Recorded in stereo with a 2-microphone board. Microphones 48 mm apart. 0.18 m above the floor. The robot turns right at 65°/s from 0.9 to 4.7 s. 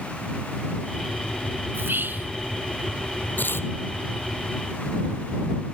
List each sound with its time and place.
1.7 s whispering: 90° right; by 2.3 s 50° right
3.4 s tearing paper: 35° left (ahead or behind); by 3.7 s 55° left (ahead or behind)